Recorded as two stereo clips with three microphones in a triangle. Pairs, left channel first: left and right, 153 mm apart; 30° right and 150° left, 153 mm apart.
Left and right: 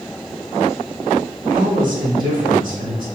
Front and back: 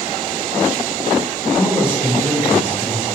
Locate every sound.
1.5 s a man speaking: 110° right, 1.8 m